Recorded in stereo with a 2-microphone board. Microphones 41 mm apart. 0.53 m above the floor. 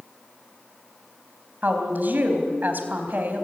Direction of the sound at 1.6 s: 45° right (ahead or behind).